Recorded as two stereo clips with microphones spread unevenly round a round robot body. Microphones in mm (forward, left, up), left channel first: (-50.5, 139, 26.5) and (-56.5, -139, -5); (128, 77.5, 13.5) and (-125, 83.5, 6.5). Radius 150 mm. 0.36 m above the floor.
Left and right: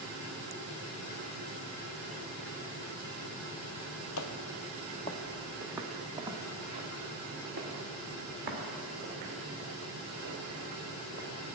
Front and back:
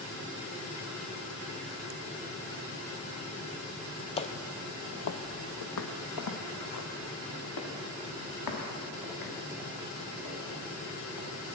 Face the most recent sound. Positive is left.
turn(degrees=-35)